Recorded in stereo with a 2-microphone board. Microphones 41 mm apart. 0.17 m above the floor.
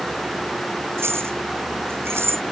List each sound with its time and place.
1.0 s keys jangling: 85° right; by 2.4 s 80° right